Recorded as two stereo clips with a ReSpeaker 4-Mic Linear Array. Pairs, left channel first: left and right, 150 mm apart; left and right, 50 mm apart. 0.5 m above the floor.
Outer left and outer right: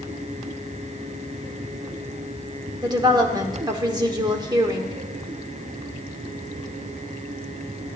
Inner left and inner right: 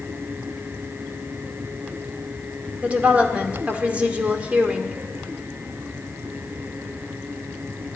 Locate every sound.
2.8 s a woman speaking: 30° right (ahead or behind), 1.2 m